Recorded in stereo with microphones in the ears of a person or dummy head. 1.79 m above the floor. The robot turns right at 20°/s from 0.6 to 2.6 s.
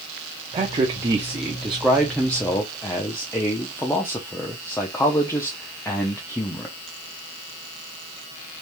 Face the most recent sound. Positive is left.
turn(degrees=10)